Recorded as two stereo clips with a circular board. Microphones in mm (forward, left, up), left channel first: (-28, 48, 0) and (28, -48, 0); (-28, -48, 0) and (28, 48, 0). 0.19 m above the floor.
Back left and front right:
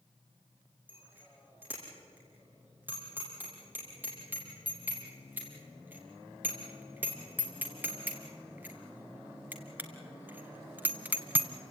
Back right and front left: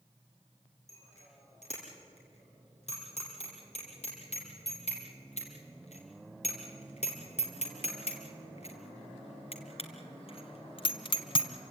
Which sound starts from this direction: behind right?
A bicycle bell, at 0.9 s.